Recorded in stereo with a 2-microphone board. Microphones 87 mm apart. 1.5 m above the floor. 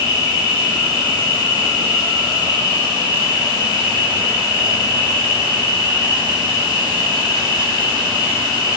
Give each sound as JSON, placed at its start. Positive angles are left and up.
{"t": 0.0, "sound": "an insect", "side_deg": -70, "distance_m": 4.5}